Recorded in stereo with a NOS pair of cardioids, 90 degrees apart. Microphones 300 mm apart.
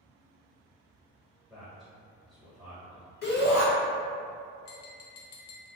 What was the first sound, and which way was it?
A man speaking, 5° right.